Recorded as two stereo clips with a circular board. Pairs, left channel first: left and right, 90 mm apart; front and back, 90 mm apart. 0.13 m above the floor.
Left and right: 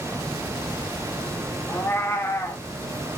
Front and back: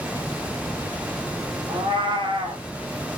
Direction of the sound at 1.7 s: 155° left.